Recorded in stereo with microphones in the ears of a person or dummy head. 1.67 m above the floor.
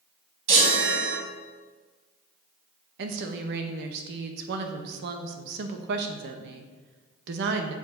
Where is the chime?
50° right (ahead or behind), 2.5 m.